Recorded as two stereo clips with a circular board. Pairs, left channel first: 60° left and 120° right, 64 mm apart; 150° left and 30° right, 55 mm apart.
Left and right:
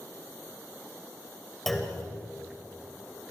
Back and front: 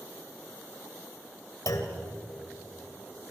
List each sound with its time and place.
1.7 s a clunk: 145° left, 3 m